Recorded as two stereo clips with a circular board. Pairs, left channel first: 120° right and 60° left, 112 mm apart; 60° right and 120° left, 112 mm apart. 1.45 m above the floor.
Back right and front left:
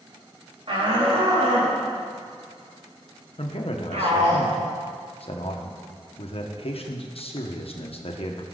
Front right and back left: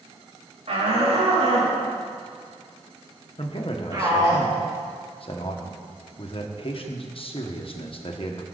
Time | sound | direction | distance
0.7 | a shout | 95° left | 3 m
3.4 | a man speaking | 95° right | 1.4 m